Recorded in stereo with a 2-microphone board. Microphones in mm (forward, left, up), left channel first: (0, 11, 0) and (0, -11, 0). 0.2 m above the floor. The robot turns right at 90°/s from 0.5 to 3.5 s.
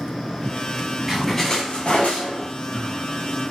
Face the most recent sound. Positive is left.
turn(degrees=-150)